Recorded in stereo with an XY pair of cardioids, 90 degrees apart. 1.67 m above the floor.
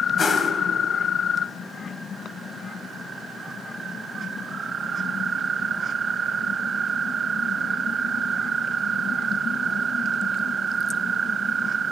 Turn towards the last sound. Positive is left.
turn(degrees=40)